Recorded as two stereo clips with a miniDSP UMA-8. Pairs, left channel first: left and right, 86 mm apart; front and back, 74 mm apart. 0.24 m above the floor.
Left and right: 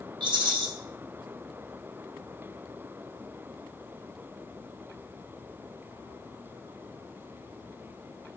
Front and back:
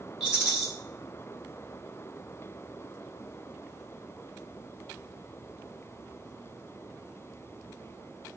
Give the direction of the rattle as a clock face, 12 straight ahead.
3 o'clock.